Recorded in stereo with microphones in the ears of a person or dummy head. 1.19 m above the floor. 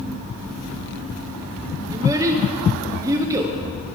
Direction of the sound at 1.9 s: 20° right (ahead or behind).